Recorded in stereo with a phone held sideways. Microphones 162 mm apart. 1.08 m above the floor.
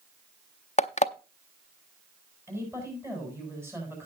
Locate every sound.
0.8 s an alarm clock: 45° left (ahead or behind), 0.6 m
2.5 s a woman speaking: 15° right (ahead or behind), 8 m